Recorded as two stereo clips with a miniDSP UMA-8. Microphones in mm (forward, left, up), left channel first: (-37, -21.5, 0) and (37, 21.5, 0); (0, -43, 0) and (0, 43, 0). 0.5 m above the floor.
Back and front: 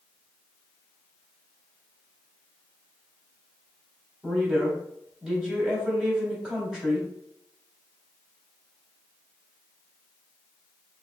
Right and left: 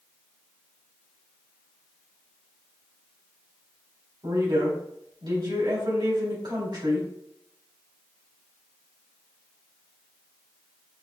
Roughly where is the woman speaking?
Left.